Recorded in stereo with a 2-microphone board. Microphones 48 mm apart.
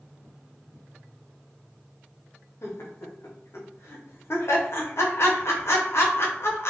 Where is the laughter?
65° left (ahead or behind), 0.7 m.